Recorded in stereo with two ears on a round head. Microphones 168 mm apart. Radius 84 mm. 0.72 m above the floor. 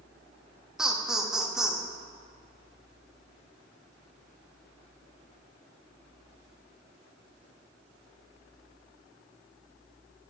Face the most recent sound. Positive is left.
turn(degrees=-5)  # may be behind; listen again after turning